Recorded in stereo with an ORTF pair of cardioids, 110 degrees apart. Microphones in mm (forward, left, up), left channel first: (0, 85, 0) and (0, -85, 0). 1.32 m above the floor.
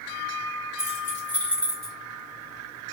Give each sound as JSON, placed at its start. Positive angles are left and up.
{"t": 0.8, "sound": "keys jangling", "azimuth_deg": 15, "distance_m": 3.5}